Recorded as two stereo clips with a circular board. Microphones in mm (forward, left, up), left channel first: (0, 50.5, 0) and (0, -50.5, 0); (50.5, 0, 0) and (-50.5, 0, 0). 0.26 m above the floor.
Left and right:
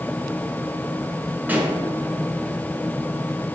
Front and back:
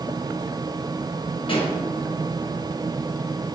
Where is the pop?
20° right, 1.0 m.